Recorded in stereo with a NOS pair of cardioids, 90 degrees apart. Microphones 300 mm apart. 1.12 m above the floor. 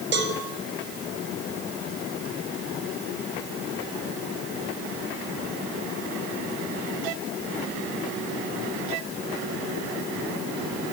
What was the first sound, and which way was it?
A cowbell, 35° right.